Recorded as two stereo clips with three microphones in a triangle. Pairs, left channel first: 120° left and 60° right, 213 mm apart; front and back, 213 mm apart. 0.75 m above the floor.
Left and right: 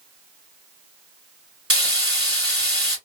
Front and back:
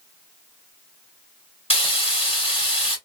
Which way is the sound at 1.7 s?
60° right.